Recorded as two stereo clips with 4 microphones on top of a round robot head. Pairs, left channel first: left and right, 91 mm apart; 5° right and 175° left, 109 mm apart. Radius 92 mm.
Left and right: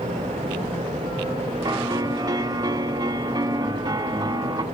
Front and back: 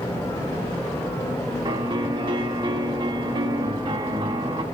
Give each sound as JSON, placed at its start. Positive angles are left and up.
{"t": 1.6, "sound": "a piano", "azimuth_deg": -135, "distance_m": 1.5}